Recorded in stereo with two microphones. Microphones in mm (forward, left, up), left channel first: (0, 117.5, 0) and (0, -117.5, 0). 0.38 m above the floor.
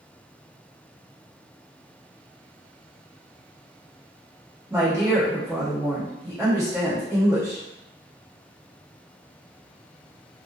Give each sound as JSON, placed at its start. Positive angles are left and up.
{"t": 4.7, "sound": "a woman speaking", "side_deg": -15, "distance_m": 1.4}